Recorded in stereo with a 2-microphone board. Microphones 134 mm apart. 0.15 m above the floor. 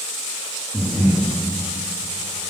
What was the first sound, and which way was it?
Breathing, centre (ahead or behind).